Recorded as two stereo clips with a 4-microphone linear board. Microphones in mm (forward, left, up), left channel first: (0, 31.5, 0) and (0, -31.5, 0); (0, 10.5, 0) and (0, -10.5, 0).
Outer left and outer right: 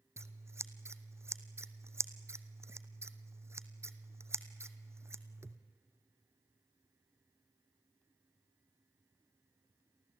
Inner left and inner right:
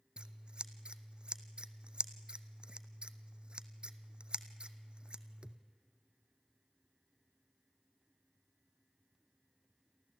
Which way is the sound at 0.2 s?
45° right (ahead or behind).